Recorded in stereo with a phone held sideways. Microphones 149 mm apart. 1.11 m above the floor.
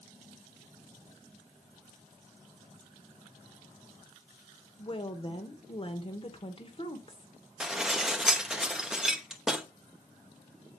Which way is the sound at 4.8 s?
40° left (ahead or behind).